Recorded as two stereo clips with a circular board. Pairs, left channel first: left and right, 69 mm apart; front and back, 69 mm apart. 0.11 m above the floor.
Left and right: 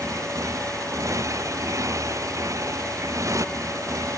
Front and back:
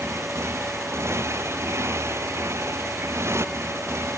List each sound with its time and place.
0.0 s a motorcycle: 130° right